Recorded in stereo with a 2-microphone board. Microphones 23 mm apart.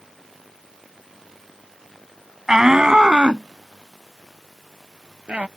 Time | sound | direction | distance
2.5 | a shout | 25° right (ahead or behind) | ?